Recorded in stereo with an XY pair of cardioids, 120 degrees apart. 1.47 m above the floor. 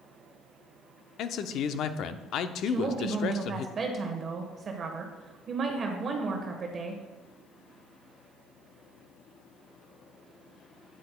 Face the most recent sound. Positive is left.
turn(degrees=-40)